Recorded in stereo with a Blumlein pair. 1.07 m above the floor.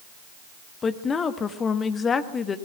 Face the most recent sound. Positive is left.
turn(degrees=20)